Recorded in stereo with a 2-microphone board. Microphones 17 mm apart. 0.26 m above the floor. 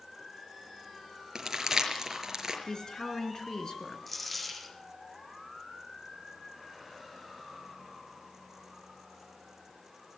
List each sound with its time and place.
1.4 s crumpling: 25° right (ahead or behind), 5.5 m
2.7 s a woman speaking: 45° left (ahead or behind), 4 m
4.1 s a dropped coin: 5° left (ahead or behind), 3.5 m